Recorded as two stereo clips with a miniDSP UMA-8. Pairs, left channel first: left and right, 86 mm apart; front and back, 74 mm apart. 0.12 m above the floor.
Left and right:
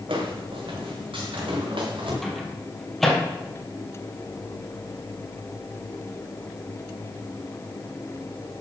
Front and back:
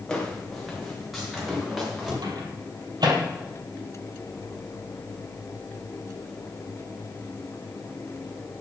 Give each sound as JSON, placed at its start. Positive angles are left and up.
{"t": 0.1, "sound": "footsteps", "azimuth_deg": -80, "distance_m": 4.0}
{"t": 2.2, "sound": "a microwave", "azimuth_deg": 180, "distance_m": 3.5}